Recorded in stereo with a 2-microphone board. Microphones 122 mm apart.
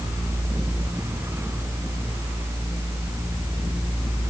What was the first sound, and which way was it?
Only background noise.